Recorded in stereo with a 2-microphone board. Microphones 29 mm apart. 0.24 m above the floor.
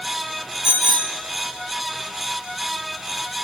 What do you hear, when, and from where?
0.6 s a bicycle bell: 35° right (ahead or behind), 3.5 m